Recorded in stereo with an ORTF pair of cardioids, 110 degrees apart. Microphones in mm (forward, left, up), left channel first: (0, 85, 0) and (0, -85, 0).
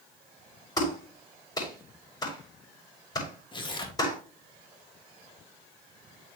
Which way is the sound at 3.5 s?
30° left.